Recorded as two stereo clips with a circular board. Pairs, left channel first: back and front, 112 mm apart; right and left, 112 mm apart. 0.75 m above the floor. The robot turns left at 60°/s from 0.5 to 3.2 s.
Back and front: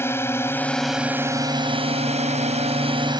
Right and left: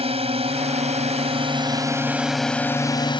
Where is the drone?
110° left; by 3.2 s 50° right.